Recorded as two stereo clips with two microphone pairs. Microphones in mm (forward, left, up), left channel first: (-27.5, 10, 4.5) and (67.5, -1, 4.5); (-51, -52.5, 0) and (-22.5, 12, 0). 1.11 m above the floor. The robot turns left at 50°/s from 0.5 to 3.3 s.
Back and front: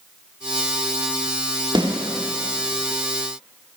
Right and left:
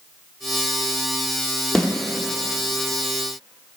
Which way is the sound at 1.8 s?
30° right.